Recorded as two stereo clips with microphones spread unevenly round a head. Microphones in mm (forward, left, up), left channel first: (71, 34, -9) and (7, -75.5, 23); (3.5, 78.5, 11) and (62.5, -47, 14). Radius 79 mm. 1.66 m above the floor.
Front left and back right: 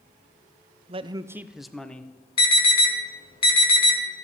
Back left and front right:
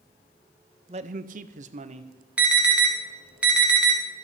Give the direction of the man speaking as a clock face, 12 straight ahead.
4 o'clock.